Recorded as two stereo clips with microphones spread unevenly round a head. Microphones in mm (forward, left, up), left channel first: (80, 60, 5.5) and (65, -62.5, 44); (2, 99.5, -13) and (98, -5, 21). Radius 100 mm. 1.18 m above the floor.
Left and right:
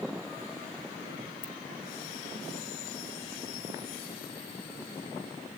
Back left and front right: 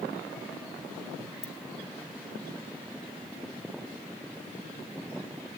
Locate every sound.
1.4 s a ringtone: 90° left, 3 m